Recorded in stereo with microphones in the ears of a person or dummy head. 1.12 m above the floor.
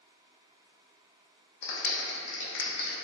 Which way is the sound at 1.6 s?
65° left (ahead or behind).